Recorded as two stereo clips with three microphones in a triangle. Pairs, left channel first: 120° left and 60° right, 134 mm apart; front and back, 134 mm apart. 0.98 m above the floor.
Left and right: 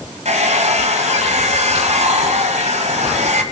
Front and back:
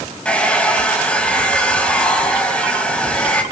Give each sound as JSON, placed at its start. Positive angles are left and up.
{"t": 0.2, "sound": "a hair dryer", "azimuth_deg": -80, "distance_m": 1.7}